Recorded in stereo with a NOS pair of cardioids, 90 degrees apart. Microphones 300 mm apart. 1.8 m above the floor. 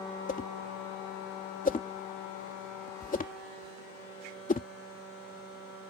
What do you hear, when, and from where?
0.3 s a whoosh: 25° left